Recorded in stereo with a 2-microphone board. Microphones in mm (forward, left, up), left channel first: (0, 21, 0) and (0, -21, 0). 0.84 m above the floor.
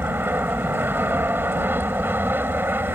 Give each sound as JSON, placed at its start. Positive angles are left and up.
{"t": 0.0, "sound": "an aircraft", "side_deg": -60}